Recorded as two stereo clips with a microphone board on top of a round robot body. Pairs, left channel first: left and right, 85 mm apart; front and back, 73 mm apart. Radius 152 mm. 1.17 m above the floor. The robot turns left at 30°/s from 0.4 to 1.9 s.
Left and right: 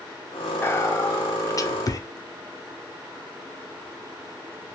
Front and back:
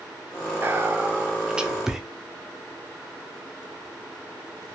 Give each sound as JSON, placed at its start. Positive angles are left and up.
{"t": 0.6, "sound": "whispering", "azimuth_deg": 140, "distance_m": 0.6}